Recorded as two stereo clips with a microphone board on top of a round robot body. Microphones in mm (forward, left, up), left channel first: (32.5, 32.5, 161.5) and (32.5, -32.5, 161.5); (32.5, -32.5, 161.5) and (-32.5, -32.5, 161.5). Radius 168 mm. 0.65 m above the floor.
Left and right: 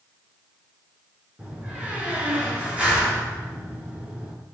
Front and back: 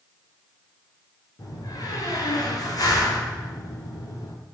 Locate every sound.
1.4 s a door slam: 20° right, 9 m